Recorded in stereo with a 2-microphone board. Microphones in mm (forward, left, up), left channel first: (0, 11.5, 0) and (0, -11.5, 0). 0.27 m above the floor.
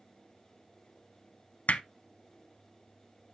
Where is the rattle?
I don't hear a rattle.